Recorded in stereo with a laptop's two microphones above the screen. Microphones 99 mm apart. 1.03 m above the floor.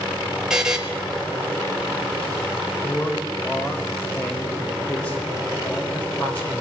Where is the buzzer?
5° right (ahead or behind), 1.7 m.